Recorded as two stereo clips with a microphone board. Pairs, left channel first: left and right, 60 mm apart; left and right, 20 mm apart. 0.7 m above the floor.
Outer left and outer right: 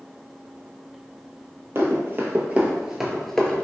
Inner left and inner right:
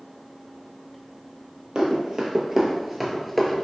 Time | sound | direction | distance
1.8 | running footsteps | 40° right (ahead or behind) | 1.0 m